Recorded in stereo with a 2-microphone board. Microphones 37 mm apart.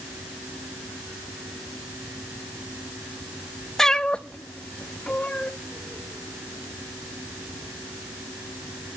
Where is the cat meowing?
10° left (ahead or behind), 0.7 m; by 5.5 s 35° left (ahead or behind), 2 m.